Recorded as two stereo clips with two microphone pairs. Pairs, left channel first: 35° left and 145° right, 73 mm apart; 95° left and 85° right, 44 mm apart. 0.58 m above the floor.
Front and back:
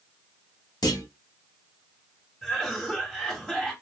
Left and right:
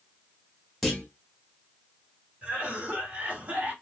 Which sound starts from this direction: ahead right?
A cough, at 2.4 s.